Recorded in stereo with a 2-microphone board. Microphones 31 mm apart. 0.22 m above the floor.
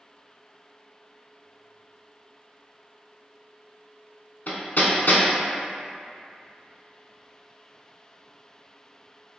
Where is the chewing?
I don't hear chewing.